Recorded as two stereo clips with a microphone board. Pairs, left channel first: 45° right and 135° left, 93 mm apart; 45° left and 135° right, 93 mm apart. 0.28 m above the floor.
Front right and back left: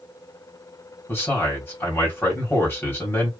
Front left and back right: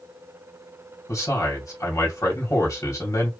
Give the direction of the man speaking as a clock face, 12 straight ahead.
12 o'clock.